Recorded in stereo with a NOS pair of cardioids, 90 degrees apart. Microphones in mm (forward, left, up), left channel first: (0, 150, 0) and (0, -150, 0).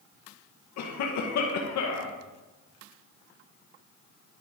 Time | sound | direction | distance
0.8 | a cough | 70° left | 1.8 m